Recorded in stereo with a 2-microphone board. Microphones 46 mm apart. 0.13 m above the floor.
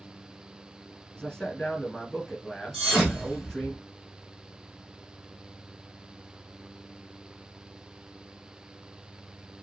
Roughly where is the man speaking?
Centre.